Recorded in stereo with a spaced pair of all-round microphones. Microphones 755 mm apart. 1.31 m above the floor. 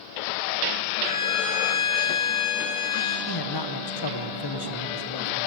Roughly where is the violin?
Left.